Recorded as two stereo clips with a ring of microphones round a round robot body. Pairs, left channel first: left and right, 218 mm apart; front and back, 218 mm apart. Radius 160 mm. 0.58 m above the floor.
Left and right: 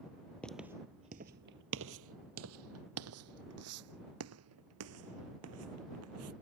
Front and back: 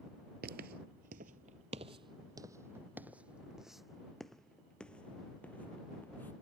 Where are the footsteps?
175° left; by 6.3 s 85° right.